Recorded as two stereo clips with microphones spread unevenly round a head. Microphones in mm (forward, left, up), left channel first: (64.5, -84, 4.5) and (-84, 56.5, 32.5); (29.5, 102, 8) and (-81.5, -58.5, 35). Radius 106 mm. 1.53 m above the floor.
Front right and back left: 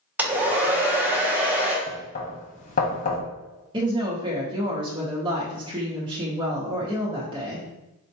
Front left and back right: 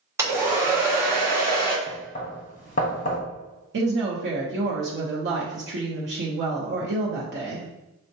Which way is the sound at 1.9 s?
5° left.